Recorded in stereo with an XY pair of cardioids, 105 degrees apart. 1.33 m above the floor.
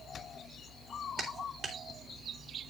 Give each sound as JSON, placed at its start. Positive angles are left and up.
{"t": 1.2, "sound": "a clap", "azimuth_deg": -55, "distance_m": 3.0}